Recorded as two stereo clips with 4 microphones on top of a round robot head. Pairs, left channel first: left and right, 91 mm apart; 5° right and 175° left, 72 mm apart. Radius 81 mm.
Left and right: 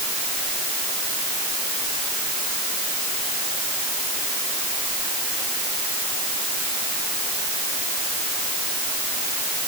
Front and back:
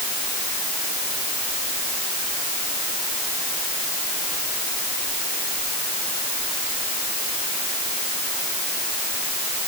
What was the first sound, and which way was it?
Only background noise.